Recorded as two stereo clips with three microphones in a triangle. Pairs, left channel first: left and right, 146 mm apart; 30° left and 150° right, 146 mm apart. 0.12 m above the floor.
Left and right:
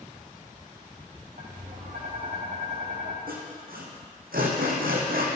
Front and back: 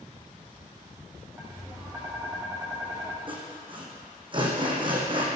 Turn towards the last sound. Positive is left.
turn(degrees=-95)